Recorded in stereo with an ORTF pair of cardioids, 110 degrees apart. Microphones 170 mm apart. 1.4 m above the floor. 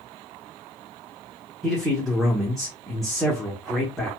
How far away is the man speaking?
About 1.0 m.